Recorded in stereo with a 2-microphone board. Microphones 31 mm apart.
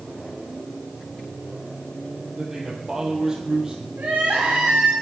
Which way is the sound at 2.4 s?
15° right (ahead or behind).